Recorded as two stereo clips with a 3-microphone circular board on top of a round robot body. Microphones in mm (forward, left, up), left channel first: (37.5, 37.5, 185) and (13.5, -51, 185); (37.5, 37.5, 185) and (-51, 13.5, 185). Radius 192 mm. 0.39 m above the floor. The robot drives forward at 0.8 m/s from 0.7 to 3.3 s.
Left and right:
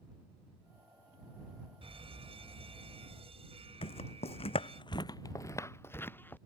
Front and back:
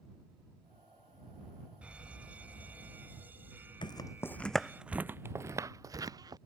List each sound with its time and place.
1.8 s a fire alarm: 85° right; by 4.8 s 95° right
3.8 s footsteps: 55° left; by 6.4 s 145° left